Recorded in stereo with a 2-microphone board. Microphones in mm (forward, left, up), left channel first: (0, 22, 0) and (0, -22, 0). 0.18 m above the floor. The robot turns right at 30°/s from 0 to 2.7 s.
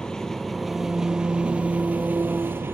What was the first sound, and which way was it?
An engine running, 165° left.